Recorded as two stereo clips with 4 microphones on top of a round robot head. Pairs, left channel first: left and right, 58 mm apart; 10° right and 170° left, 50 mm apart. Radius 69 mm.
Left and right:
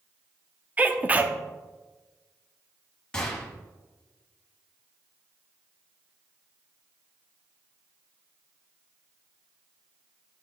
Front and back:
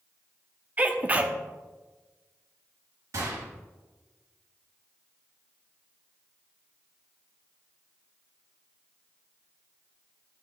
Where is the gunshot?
170° left, 2.5 m.